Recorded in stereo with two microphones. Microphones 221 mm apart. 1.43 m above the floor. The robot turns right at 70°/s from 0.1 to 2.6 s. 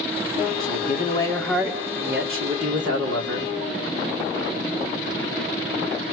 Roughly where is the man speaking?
Behind left.